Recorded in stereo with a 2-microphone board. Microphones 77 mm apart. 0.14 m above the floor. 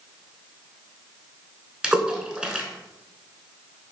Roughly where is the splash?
Centre.